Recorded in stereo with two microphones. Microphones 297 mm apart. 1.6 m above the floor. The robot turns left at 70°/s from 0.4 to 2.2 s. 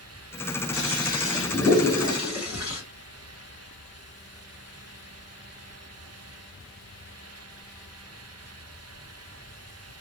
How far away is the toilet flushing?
About 2 m.